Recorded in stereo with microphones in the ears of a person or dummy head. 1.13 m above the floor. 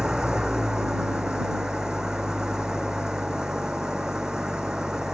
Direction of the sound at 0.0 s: 5° right (ahead or behind).